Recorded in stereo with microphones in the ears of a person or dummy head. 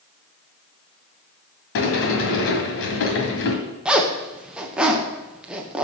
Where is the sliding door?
60° left (ahead or behind), 1.9 m.